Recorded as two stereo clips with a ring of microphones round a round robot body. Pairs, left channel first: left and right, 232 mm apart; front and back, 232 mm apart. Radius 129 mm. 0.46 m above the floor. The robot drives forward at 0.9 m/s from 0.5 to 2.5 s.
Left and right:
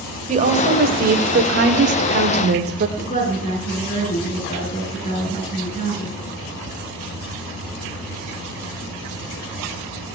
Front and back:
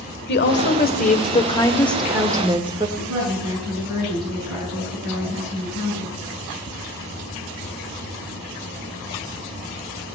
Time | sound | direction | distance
0.3 | a woman speaking | 35° right | 1.8 m
3.0 | a woman speaking | 145° left | 8 m